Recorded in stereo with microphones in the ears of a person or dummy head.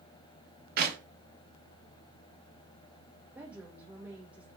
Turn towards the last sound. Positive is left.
turn(degrees=-10)  # may be behind; listen again after turning